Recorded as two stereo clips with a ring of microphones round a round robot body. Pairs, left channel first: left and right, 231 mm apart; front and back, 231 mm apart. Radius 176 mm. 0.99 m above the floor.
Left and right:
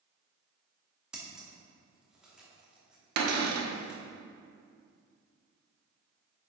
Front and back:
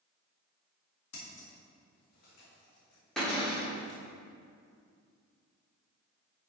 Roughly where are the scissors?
Ahead.